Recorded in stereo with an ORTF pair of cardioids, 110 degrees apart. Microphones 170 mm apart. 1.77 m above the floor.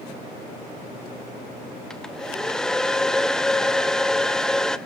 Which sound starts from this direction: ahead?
A hair dryer, at 1.9 s.